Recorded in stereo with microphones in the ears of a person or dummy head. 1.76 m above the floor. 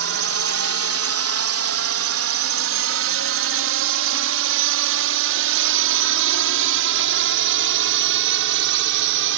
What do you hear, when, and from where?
0.0 s a drone: 65° right (ahead or behind)